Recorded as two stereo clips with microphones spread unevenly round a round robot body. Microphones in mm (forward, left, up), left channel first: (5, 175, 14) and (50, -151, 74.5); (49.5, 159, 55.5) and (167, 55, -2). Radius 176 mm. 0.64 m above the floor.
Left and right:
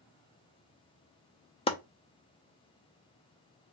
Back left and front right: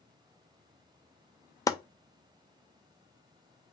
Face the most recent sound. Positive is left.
turn(degrees=50)